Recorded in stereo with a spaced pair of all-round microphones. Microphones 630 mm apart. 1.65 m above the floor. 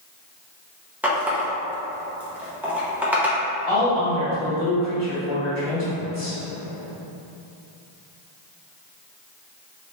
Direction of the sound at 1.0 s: 5° right (ahead or behind).